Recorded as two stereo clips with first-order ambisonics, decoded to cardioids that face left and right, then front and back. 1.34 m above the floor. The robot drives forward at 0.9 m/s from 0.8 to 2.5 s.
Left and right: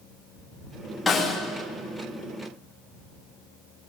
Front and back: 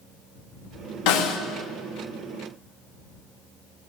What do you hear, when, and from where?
1.1 s a snare drum: 10° left, 2.5 m